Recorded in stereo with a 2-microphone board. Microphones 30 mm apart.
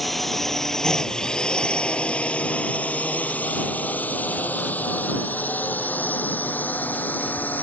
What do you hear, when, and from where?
0.0 s a drone: 5° left (ahead or behind); by 7.6 s 75° left (ahead or behind)